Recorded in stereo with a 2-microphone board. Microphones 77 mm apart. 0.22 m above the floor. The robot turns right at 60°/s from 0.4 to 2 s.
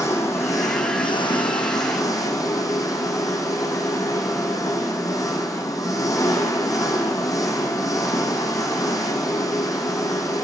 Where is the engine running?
40° left, 3 m; by 10.4 s 135° left, 3 m.